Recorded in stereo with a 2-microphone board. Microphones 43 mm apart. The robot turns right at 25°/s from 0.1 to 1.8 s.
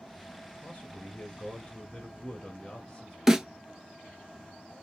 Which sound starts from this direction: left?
A man speaking, at 0.6 s.